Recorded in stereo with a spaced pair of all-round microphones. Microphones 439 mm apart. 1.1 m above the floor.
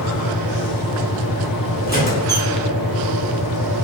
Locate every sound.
0.0 s a fan: 50° left (ahead or behind), 0.9 m
1.9 s a squeak: 20° left (ahead or behind), 1.0 m